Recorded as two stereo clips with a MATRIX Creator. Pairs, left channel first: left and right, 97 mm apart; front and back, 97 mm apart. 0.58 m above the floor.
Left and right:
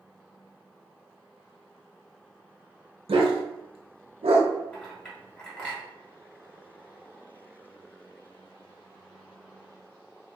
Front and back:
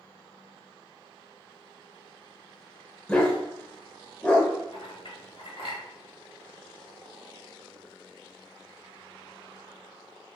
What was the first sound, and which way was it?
A dog barking, 80° right.